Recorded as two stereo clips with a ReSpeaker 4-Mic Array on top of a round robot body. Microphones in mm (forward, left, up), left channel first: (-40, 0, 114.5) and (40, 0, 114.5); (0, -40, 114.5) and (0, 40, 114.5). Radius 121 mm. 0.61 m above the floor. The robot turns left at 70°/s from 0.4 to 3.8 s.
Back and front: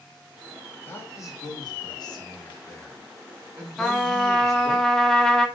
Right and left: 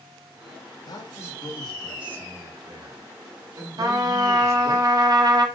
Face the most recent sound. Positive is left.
turn(degrees=100)